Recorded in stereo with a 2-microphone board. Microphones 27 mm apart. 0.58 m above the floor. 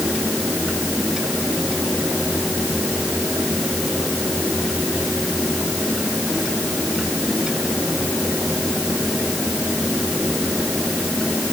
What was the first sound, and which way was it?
Only background noise.